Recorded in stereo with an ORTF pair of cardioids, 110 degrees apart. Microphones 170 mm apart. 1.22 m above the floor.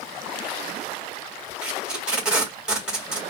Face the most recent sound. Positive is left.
turn(degrees=-5)